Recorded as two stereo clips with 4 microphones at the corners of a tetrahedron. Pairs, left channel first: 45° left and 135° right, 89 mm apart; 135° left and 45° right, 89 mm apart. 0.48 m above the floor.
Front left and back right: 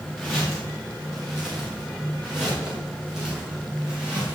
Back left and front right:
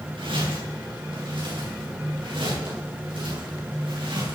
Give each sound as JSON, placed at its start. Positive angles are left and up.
{"t": 0.2, "sound": "footsteps", "azimuth_deg": -45, "distance_m": 8.5}